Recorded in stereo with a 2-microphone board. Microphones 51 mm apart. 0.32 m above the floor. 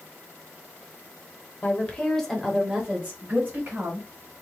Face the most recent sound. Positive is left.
turn(degrees=-40)  # may be behind; listen again after turning